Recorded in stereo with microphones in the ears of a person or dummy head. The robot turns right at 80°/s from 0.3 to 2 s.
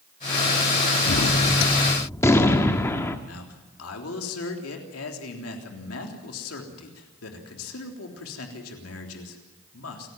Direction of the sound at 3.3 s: 85° left.